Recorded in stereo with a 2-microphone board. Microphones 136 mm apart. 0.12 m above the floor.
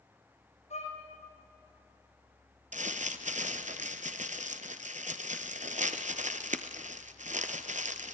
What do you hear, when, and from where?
0.7 s a violin: 55° left (ahead or behind), 7 m
2.7 s crumpling: 65° right (ahead or behind), 1.0 m